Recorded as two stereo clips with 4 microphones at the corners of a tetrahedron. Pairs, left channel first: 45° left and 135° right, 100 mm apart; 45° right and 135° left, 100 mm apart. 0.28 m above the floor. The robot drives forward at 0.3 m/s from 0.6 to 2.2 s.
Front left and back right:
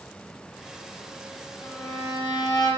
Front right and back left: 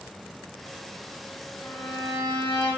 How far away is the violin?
About 0.9 m.